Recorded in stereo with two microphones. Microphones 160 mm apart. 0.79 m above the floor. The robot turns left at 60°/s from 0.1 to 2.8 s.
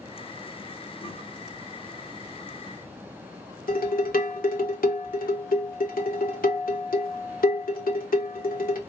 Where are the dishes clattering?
65° left (ahead or behind), 1.1 m.